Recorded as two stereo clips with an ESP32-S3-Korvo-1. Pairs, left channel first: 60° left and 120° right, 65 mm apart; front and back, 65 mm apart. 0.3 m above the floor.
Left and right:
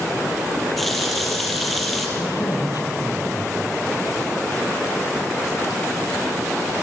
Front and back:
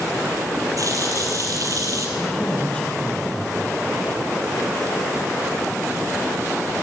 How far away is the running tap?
About 5 m.